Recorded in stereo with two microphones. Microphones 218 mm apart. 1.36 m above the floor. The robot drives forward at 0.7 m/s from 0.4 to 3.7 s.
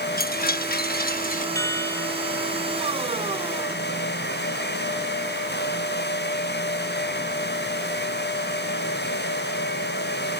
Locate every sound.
0.2 s a chime: 45° left (ahead or behind); by 1.4 s 40° left (ahead or behind)
1.6 s a chime: 15° left (ahead or behind)